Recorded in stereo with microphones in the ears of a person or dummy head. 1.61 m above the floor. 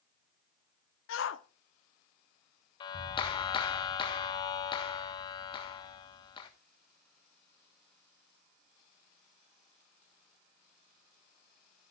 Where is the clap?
35° left (ahead or behind), 1.4 m.